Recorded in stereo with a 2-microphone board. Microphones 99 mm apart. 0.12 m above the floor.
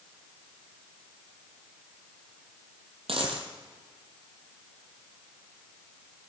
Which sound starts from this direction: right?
A dropped coin, at 3.1 s.